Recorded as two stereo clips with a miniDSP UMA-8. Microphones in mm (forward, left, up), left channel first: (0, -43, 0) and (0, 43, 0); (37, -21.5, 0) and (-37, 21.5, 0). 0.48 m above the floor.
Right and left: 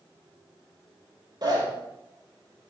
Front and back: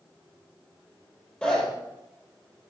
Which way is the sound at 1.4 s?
45° left.